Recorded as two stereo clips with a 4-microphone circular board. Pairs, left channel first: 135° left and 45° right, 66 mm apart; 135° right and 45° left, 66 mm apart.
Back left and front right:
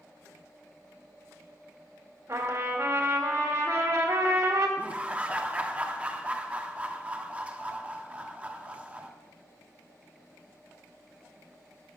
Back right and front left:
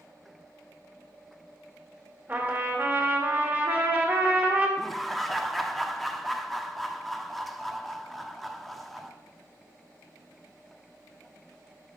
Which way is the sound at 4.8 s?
50° right.